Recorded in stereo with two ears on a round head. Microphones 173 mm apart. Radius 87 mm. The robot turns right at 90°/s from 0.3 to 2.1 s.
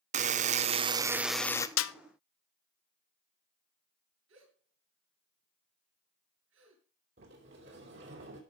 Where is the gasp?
75° right (ahead or behind), 7 m.